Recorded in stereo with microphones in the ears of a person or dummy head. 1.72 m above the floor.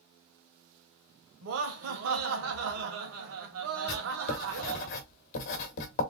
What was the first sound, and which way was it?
Laughter, 80° right.